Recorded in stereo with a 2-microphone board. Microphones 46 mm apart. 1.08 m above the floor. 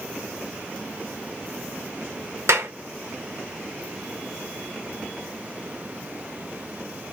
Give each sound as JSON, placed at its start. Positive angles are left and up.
{"t": 2.5, "sound": "a clap", "side_deg": -75, "distance_m": 1.1}